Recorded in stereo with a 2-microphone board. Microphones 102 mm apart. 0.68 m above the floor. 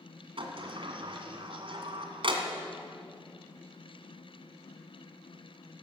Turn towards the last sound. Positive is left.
turn(degrees=-60)  # may be behind; listen again after turning